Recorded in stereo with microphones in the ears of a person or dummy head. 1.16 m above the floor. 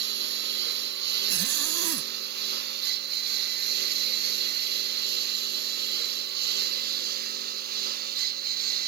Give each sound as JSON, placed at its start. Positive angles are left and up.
{"t": 0.0, "sound": "a lawn mower", "side_deg": -55}
{"t": 1.3, "sound": "a zipper", "side_deg": -75}